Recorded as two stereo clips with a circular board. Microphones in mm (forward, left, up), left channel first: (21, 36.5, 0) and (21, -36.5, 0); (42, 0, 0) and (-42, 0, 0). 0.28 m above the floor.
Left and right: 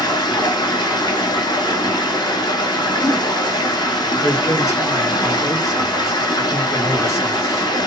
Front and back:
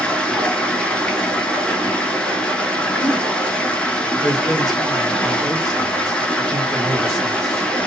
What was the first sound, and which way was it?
Running water, 75° left.